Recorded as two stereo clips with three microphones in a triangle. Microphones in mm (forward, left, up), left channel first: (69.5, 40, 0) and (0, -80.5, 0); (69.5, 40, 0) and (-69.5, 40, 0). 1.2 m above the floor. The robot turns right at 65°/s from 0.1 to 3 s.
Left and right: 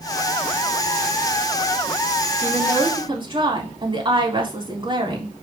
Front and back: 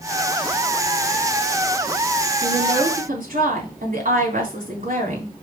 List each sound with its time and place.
2.4 s a woman speaking: 150° left, 3 m; by 5.3 s 170° right, 3 m